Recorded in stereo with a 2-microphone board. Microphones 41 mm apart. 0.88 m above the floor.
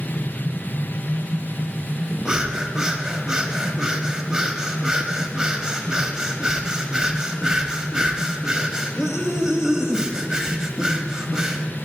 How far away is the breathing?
About 0.9 m.